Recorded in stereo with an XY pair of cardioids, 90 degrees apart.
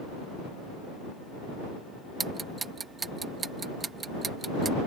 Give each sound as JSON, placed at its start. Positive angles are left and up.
{"t": 2.2, "sound": "ticking", "azimuth_deg": -40}